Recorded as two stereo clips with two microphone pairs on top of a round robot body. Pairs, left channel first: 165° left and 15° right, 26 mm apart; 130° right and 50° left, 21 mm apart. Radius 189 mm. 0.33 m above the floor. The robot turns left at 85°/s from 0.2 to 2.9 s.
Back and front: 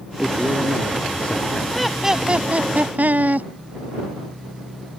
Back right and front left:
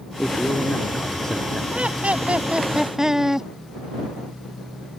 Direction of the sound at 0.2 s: 70° right.